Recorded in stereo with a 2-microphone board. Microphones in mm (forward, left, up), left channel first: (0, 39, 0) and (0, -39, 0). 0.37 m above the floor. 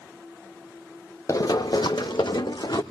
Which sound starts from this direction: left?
Running footsteps, at 1.3 s.